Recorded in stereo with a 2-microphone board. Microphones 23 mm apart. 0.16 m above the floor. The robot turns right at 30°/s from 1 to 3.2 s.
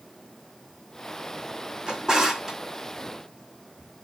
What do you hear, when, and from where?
1.9 s a drawer: 40° right (ahead or behind), 2 m; by 2.6 s 15° right (ahead or behind), 2 m